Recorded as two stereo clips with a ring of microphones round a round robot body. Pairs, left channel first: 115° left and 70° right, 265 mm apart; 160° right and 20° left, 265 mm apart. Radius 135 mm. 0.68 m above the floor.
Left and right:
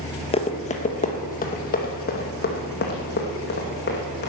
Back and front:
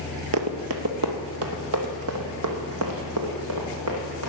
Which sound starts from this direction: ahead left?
Running footsteps, at 0.3 s.